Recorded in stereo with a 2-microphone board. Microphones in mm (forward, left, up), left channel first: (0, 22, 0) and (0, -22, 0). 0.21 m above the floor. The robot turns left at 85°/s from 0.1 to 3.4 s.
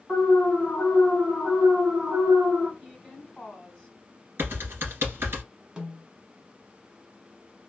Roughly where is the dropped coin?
I don't hear a dropped coin.